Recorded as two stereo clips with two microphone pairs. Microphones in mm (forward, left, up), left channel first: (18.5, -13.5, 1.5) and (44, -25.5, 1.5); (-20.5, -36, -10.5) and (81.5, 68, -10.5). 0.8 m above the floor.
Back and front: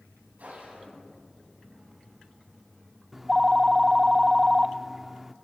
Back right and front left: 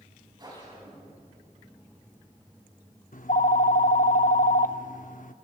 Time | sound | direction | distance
0.4 | a whoosh | 15° right | 7.5 m
3.1 | a phone ringing | 105° right | 0.7 m